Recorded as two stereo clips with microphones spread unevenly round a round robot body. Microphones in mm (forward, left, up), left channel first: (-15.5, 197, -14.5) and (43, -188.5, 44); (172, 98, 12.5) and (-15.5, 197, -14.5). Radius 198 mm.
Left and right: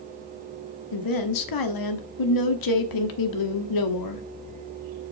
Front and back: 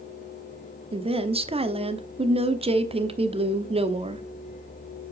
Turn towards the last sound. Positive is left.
turn(degrees=95)